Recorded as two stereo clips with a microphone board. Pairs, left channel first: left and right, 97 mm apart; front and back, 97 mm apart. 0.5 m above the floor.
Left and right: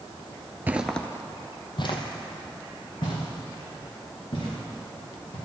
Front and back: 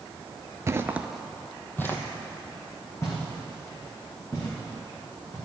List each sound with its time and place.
0.7 s footsteps: 145° right, 0.5 m; by 5.4 s 60° left, 4.5 m